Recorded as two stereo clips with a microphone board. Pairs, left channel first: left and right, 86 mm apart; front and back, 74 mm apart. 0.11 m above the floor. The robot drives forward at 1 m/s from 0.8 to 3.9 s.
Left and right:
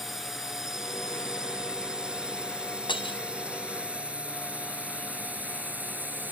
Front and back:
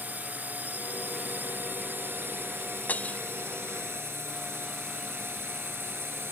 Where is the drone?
170° right; by 6.3 s 145° right.